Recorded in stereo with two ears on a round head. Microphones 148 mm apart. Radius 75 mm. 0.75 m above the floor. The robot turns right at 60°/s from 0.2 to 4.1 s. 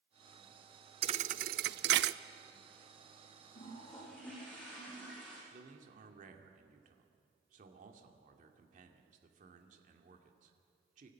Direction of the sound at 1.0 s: 35° right (ahead or behind).